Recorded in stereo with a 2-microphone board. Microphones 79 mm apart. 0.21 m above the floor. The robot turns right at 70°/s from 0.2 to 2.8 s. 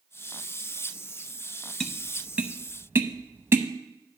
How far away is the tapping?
About 0.8 m.